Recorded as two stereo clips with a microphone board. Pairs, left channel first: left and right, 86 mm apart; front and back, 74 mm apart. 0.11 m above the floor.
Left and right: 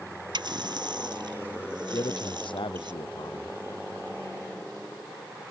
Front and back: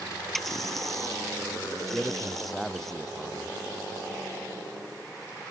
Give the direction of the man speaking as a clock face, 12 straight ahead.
9 o'clock.